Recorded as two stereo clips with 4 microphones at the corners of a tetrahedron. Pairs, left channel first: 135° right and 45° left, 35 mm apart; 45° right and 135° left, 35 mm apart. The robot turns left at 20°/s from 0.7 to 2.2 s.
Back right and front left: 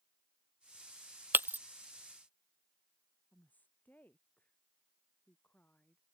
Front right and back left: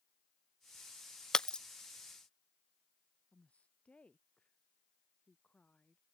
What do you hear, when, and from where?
1.3 s breaking glass: 25° left; by 1.6 s 20° left
3.3 s a woman speaking: 100° right